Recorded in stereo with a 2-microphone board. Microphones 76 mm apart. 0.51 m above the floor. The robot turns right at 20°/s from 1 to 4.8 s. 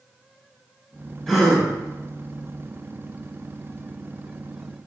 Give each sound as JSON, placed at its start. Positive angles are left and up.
{"t": 1.3, "sound": "a gasp", "side_deg": 5, "distance_m": 1.3}